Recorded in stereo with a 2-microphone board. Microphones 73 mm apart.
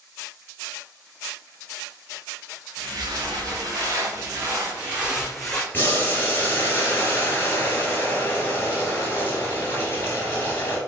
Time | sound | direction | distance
2.8 | footsteps | 60° right (ahead or behind) | 1.7 m
5.7 | boiling | 30° left (ahead or behind) | 1.2 m